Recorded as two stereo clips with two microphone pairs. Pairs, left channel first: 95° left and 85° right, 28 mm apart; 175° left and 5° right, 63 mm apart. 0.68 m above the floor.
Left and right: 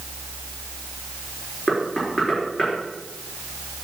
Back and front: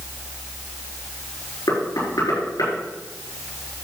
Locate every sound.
1.7 s knocking: 170° right, 7 m